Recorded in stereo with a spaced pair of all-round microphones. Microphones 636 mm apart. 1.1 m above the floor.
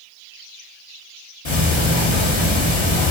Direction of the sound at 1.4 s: 45° left (ahead or behind).